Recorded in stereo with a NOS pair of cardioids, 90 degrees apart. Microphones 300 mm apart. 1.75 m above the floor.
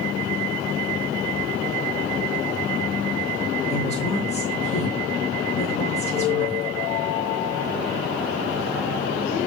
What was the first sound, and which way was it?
A woman speaking, 20° left.